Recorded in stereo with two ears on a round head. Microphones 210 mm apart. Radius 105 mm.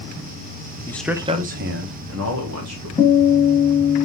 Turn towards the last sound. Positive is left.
turn(degrees=-5)  # may be behind; listen again after turning